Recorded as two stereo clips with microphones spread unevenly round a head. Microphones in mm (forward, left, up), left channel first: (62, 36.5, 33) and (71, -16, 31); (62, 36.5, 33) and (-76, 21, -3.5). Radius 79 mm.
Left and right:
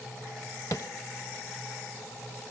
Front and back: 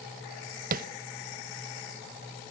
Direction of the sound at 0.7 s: 160° left.